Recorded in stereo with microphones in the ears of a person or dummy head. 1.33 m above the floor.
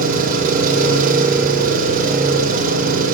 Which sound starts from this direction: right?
An engine running, at 0.0 s.